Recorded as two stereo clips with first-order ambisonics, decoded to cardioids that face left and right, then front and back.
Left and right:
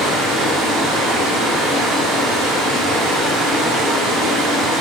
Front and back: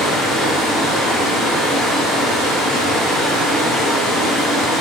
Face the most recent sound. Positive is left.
turn(degrees=-65)